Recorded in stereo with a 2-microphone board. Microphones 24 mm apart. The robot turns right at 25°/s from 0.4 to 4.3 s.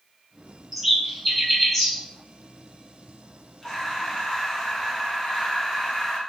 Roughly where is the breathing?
Left.